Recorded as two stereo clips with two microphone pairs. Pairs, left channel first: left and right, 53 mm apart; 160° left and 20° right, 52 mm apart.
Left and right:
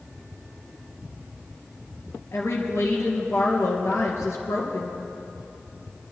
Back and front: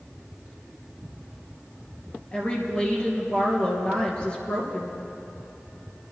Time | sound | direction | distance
2.3 | a woman speaking | 95° left | 3 m